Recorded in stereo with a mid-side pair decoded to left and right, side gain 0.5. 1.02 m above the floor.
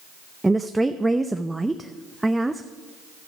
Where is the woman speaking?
10° right, 0.5 m.